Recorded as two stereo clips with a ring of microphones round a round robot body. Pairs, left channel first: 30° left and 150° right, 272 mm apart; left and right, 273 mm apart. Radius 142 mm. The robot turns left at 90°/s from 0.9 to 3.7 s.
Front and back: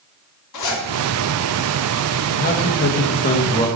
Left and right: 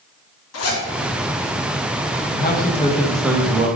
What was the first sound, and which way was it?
A zipper, 55° left.